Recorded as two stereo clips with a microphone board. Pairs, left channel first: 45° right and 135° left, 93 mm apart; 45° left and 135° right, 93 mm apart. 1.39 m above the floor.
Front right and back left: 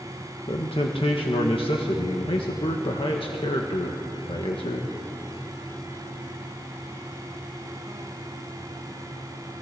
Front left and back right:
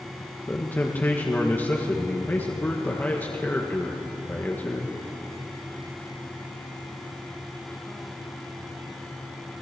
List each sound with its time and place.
0.5 s a man speaking: 25° right, 1.7 m